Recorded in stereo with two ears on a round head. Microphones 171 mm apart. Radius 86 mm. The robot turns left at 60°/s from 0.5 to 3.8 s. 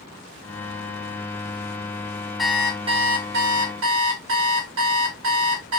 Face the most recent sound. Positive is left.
turn(degrees=-85)